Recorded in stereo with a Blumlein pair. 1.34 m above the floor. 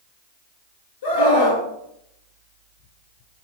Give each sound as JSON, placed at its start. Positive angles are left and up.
{"t": 1.0, "sound": "a scream", "azimuth_deg": 60, "distance_m": 2.5}